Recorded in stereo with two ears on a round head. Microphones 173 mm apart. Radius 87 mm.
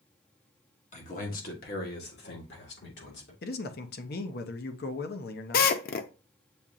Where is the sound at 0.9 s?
40° left (ahead or behind), 1.1 m; by 3.3 s 65° left (ahead or behind), 2 m.